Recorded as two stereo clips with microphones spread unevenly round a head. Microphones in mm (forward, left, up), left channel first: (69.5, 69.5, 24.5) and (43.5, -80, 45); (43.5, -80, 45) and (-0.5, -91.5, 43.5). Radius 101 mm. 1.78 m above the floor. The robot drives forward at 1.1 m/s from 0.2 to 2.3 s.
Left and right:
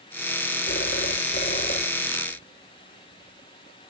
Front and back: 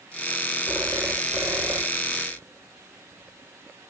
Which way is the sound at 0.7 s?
130° left.